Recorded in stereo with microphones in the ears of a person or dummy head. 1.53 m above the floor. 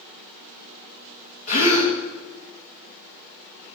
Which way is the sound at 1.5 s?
45° left (ahead or behind).